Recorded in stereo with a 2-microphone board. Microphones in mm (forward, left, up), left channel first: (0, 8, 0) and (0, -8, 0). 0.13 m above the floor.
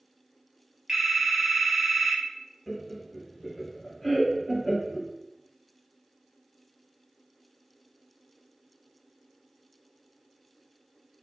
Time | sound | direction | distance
0.9 | a phone ringing | 15° right (ahead or behind) | 1.4 m
2.7 | laughter | 15° left (ahead or behind) | 1.2 m